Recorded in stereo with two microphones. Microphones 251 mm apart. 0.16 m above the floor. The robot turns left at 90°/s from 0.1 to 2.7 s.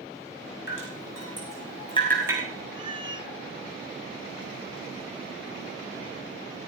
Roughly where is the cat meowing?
Centre.